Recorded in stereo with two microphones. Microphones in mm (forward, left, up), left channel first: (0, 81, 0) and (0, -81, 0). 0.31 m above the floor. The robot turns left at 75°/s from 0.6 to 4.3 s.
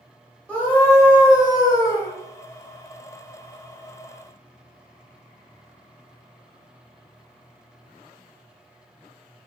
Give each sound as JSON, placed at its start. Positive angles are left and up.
{"t": 0.5, "sound": "a scream", "side_deg": 10, "distance_m": 0.9}